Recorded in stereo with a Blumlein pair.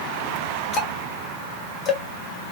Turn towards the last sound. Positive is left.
turn(degrees=30)